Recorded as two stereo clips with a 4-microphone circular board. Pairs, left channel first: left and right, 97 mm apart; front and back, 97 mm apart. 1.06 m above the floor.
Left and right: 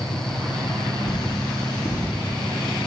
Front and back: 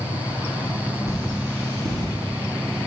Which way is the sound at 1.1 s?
125° left.